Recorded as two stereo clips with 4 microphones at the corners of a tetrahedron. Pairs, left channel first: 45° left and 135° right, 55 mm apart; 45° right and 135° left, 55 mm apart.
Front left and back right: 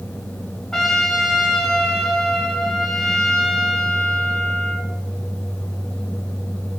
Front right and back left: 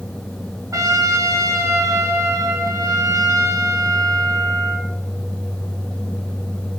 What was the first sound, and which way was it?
A trumpet, 125° left.